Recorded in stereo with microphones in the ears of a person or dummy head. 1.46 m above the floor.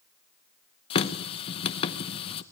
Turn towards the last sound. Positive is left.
turn(degrees=40)  # may be behind; listen again after turning